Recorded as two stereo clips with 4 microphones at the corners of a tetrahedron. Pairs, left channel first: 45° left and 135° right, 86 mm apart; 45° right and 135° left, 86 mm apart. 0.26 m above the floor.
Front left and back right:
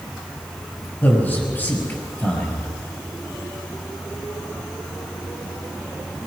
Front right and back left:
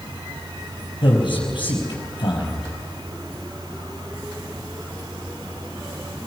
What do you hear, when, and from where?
1.0 s a man speaking: 25° right, 5.5 m